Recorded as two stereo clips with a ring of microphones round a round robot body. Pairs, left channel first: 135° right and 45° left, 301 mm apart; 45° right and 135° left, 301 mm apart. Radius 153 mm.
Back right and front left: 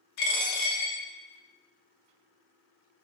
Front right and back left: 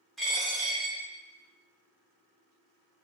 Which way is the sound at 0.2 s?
135° right.